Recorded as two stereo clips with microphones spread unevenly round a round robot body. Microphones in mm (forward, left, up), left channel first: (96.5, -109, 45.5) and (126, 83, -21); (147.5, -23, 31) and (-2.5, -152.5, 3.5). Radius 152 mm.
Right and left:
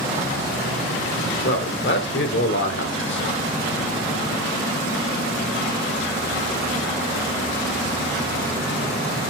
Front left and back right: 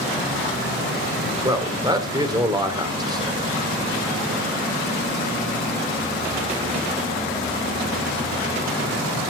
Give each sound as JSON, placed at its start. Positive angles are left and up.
{"t": 1.4, "sound": "a man speaking", "azimuth_deg": -70, "distance_m": 3.0}